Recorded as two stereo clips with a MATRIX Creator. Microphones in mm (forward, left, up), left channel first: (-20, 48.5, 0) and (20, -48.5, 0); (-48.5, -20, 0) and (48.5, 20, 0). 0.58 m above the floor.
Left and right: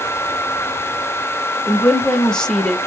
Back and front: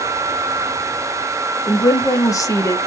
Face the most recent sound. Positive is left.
turn(degrees=-170)